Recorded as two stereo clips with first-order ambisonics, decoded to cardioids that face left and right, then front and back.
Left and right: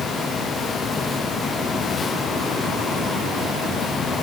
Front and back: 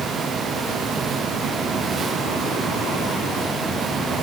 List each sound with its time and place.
Only background noise.